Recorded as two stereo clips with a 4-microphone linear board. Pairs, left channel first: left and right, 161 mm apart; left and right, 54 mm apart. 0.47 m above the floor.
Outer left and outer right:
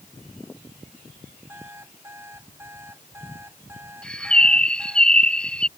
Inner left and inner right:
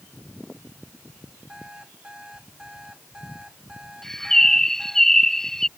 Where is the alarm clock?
15° right (ahead or behind).